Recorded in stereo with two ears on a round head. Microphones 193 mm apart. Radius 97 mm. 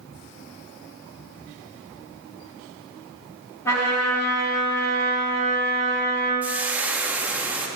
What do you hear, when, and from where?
3.6 s a trumpet: 15° left (ahead or behind), 3 m
6.4 s frying: 10° right (ahead or behind), 0.7 m